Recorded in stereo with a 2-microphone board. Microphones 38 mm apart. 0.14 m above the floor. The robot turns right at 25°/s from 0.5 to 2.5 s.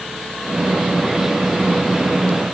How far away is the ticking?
No ticking in this recording.